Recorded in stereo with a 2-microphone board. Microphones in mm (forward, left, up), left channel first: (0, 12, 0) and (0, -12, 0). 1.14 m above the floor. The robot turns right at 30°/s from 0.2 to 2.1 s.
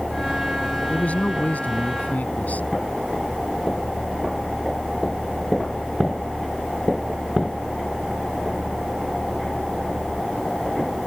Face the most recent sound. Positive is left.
turn(degrees=95)